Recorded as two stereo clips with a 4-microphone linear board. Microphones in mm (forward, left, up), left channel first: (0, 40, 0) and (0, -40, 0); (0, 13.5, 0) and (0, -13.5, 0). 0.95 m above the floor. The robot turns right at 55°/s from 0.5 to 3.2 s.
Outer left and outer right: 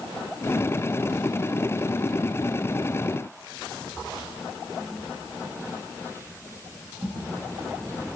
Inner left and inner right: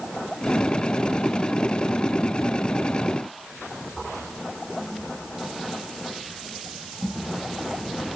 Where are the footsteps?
10° left (ahead or behind), 3 m; by 7.2 s 40° right (ahead or behind), 6 m.